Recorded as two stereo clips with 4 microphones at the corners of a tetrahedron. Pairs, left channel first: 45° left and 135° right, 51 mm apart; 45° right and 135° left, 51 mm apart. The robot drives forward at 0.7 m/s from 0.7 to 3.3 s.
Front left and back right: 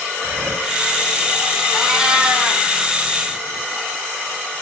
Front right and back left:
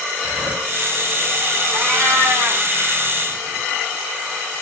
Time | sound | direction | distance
0.1 | breathing | straight behind | 6.5 m
1.7 | a cat meowing | 145° left | 1.5 m